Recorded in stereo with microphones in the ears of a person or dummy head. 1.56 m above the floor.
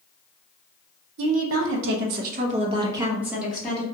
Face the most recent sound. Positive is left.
turn(degrees=5)  # may be behind; listen again after turning